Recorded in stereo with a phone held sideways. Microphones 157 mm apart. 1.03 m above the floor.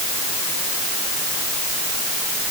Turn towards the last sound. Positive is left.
No sound to turn to.